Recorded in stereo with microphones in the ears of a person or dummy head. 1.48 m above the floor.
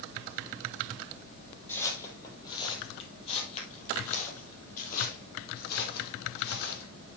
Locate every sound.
1.7 s footsteps: 10° left (ahead or behind), 3 m; by 6.9 s 60° left (ahead or behind), 4 m